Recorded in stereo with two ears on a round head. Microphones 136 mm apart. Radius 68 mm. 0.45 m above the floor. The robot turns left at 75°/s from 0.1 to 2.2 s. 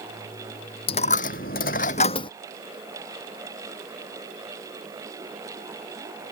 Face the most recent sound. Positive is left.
turn(degrees=35)  # may be behind; listen again after turning